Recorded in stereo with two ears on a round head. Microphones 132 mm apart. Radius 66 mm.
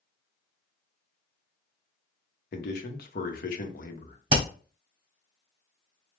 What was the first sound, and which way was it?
A man speaking, 65° left (ahead or behind).